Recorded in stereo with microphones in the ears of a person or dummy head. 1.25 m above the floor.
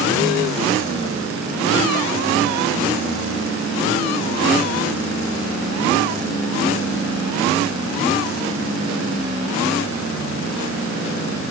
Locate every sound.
Only background noise.